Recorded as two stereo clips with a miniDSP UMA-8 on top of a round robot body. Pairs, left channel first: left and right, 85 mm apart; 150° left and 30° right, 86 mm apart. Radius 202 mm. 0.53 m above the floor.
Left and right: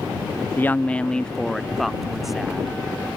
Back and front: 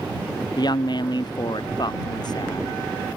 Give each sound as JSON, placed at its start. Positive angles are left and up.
{"t": 0.6, "sound": "a woman speaking", "azimuth_deg": 150}